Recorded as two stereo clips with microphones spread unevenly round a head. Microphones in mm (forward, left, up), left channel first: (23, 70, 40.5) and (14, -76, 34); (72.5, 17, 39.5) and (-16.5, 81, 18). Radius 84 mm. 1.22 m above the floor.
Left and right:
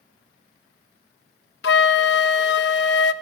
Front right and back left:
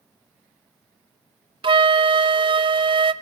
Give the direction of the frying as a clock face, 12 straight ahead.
No frying in this recording.